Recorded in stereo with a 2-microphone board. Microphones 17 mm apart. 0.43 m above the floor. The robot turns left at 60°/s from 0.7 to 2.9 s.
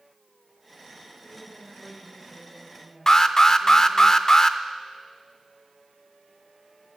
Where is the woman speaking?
60° left, 8 m; by 4.1 s 40° right, 8 m.